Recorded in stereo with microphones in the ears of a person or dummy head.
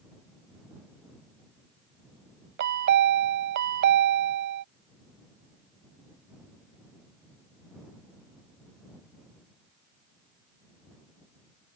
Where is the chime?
55° right (ahead or behind).